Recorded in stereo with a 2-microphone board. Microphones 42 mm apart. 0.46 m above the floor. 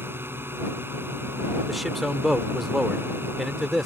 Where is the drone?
70° right (ahead or behind).